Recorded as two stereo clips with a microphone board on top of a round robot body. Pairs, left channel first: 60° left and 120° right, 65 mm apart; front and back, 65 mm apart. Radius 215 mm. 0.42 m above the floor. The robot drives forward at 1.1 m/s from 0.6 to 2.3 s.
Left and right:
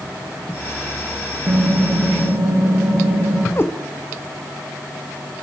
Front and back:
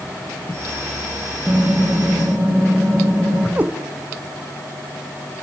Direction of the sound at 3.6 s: 115° left.